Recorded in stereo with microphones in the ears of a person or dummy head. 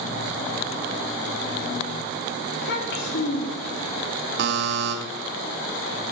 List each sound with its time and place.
2.5 s a child speaking: 70° left (ahead or behind), 2.5 m
4.4 s a buzzer: 65° right (ahead or behind), 1.6 m